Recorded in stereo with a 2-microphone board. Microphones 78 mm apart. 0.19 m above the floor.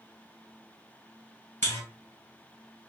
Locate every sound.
1.6 s a buzzer: 30° left (ahead or behind), 1.6 m